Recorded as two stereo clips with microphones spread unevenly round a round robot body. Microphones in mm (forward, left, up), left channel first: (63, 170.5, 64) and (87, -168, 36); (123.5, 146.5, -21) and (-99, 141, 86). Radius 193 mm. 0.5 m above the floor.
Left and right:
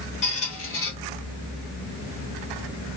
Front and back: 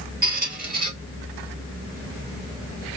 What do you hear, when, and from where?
0.2 s a squeak: 160° left, 0.9 m